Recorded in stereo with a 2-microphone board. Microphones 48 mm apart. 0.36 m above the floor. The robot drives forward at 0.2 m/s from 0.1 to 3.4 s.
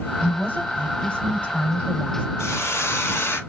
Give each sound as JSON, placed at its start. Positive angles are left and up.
{"t": 0.2, "sound": "a woman speaking", "side_deg": 25, "distance_m": 1.4}
{"t": 2.4, "sound": "a hiss", "side_deg": 75, "distance_m": 0.6}